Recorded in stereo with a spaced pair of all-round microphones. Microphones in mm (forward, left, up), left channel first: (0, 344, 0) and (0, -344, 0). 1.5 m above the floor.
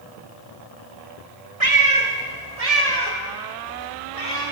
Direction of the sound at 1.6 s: 40° right (ahead or behind).